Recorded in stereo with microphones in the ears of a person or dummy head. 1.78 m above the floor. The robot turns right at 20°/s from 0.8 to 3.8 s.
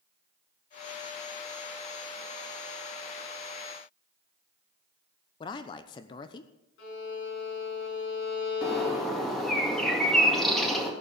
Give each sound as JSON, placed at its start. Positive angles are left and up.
{"t": 5.4, "sound": "a man speaking", "side_deg": 25, "distance_m": 0.8}
{"t": 6.8, "sound": "a violin", "side_deg": 70, "distance_m": 6.5}
{"t": 8.6, "sound": "a bird", "side_deg": 0, "distance_m": 2.0}